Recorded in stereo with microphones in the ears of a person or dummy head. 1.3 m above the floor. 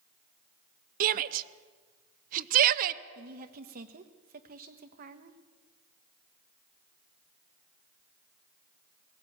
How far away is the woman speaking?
About 1.4 m.